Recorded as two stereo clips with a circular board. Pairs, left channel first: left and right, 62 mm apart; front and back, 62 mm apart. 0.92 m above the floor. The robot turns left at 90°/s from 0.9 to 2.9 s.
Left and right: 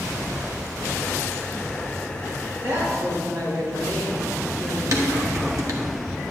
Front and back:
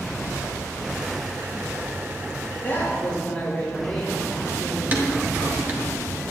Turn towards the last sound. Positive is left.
turn(degrees=-120)